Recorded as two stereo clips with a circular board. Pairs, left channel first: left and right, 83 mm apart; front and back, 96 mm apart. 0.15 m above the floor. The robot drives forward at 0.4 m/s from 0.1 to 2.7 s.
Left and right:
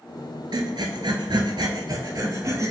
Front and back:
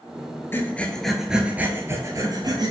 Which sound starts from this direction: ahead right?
Breathing, at 0.5 s.